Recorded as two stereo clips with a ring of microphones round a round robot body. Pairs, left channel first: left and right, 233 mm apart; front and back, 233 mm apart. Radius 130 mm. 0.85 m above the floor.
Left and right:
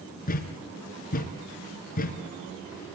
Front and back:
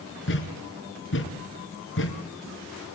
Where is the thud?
35° left, 4 m.